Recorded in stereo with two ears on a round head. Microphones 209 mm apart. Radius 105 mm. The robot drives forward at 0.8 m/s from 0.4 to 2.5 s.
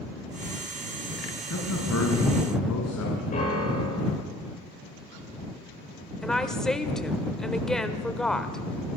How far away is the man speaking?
About 5 m.